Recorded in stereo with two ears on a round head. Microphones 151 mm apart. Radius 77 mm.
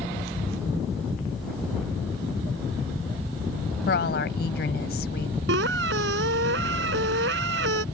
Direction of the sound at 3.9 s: 60° left (ahead or behind).